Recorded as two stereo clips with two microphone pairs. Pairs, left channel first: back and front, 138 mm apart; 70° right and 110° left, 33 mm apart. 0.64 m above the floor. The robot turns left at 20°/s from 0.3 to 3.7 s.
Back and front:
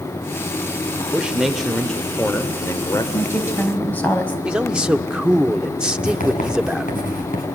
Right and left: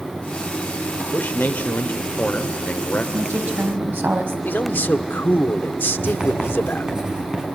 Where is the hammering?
No hammering in this recording.